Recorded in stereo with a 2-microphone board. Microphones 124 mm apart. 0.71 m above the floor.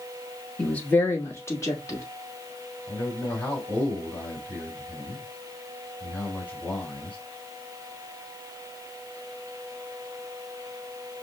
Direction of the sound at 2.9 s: 15° left (ahead or behind).